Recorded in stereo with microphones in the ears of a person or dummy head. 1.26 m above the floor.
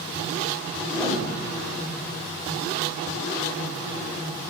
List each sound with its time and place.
0.9 s a piano: 10° left (ahead or behind), 3.5 m